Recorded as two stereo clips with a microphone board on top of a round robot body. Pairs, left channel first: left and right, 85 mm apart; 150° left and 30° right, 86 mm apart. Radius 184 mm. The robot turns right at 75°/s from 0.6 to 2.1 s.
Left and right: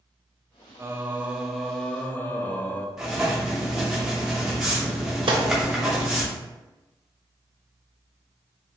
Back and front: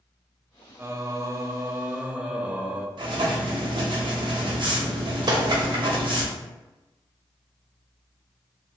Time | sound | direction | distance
0.8 | singing | 60° right | 0.6 m
3.0 | writing | 5° right | 0.6 m
5.3 | a gunshot | 70° right | 0.5 m